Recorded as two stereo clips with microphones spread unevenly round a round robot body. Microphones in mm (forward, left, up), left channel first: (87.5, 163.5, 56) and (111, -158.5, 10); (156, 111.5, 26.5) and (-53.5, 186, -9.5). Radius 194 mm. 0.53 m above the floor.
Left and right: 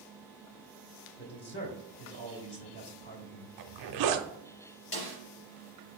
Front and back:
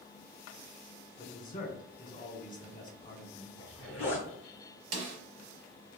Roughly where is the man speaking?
Ahead left.